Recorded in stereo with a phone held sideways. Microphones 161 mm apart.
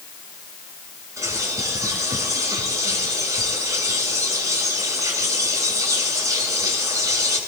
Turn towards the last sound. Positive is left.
turn(degrees=-20)  # may be behind; listen again after turning